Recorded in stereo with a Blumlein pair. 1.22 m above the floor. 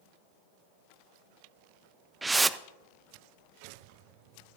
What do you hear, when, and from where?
2.2 s a whoosh: 10° right, 0.5 m